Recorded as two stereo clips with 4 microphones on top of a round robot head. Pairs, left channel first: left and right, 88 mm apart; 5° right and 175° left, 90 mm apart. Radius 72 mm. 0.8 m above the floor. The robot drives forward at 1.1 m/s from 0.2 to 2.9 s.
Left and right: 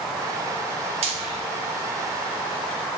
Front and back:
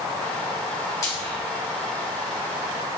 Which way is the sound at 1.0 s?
70° right.